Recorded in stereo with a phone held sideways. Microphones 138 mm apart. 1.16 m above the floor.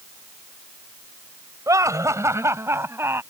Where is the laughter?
25° right (ahead or behind); by 3.2 s 15° right (ahead or behind).